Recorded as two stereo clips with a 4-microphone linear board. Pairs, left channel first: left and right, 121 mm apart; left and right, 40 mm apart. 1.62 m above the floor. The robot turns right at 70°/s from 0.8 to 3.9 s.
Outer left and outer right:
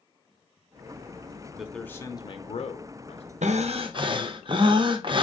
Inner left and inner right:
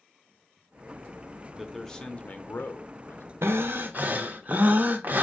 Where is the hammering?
No hammering in this recording.